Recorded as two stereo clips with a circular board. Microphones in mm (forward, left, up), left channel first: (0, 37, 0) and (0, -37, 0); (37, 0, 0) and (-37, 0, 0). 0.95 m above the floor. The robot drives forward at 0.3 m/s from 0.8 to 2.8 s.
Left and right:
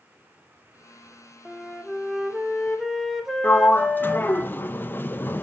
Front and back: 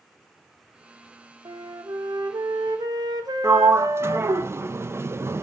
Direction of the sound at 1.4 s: Straight behind.